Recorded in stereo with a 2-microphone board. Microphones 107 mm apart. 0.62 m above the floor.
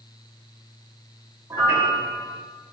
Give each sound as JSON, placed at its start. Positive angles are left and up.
{"t": 1.5, "sound": "a piano", "side_deg": -25, "distance_m": 0.6}